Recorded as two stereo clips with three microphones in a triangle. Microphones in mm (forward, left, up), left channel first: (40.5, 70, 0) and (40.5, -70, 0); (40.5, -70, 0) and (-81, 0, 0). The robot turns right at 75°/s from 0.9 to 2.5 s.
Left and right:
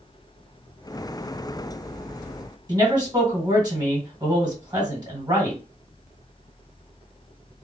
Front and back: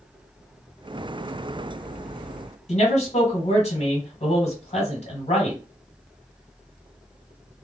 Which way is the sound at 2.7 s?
40° right.